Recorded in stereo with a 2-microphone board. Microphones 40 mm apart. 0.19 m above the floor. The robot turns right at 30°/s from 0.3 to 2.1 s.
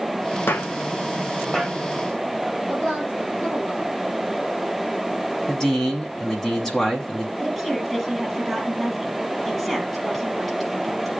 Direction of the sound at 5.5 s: 15° left (ahead or behind).